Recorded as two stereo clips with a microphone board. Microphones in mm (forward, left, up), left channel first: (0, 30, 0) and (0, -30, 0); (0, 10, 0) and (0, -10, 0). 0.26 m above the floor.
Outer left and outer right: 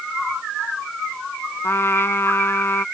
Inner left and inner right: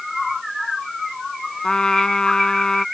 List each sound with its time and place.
1.6 s a trumpet: 45° left (ahead or behind)